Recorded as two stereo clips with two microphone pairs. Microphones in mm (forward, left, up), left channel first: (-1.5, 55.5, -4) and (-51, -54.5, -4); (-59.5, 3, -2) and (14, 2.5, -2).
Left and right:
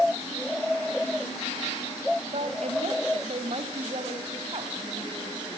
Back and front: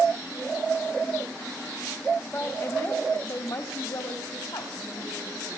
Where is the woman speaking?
120° right, 2.5 m; by 5.6 s 165° right, 4 m.